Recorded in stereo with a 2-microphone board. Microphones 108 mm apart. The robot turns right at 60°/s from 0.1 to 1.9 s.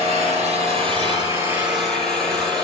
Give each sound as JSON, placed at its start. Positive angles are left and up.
{"t": 0.0, "sound": "an engine running", "azimuth_deg": -105, "distance_m": 8.0}